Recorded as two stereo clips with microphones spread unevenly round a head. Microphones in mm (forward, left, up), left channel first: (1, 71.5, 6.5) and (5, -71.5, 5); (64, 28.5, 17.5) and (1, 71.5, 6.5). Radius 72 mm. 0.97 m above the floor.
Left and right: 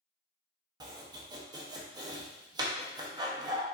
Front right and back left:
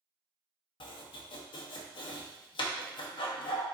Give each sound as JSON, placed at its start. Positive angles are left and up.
{"t": 0.8, "sound": "chopping", "azimuth_deg": -25, "distance_m": 0.8}